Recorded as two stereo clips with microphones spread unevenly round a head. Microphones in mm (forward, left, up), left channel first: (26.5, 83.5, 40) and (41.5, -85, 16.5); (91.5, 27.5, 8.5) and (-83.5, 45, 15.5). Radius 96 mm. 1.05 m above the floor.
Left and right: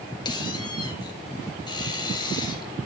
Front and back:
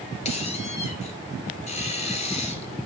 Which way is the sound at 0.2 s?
40° left.